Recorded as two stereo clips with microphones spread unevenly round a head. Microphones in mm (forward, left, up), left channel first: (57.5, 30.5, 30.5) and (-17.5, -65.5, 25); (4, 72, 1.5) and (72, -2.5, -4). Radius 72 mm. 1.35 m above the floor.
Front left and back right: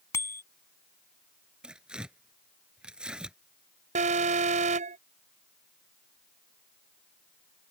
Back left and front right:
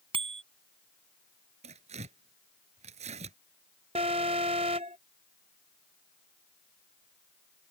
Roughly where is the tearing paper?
Ahead right.